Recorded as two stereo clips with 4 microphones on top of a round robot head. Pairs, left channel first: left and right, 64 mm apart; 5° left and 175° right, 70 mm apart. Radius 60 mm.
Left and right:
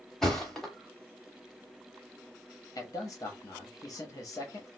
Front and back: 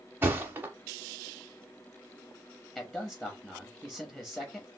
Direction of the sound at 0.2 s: 170° left.